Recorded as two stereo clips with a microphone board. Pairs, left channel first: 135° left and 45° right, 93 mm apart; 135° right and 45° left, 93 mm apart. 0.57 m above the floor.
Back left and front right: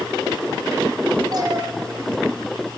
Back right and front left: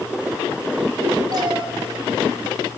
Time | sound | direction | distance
1.3 | a cat meowing | straight ahead | 1.1 m